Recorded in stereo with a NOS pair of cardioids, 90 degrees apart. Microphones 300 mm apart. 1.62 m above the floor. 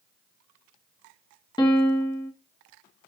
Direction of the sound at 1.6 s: 15° left.